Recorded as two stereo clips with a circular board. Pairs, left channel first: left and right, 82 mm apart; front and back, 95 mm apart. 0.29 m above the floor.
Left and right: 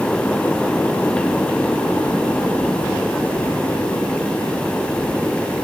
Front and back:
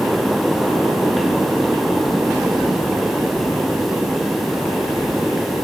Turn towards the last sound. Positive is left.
No sound to turn to.